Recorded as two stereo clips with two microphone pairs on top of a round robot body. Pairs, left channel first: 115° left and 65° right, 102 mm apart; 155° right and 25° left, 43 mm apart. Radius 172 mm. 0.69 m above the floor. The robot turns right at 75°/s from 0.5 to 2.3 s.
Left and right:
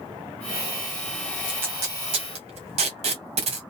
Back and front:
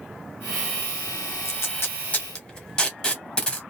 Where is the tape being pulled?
145° right, 0.8 m; by 3.6 s 80° right, 0.8 m.